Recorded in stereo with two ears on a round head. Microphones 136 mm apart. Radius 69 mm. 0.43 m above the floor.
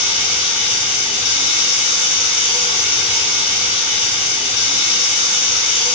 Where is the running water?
35° left (ahead or behind), 1.6 m.